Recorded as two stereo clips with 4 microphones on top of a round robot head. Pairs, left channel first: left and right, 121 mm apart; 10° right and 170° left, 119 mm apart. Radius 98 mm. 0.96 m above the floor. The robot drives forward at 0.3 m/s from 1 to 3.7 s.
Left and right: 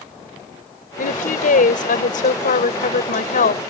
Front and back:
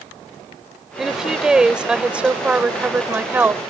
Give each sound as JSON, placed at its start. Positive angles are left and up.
{"t": 1.0, "sound": "a woman speaking", "azimuth_deg": 85}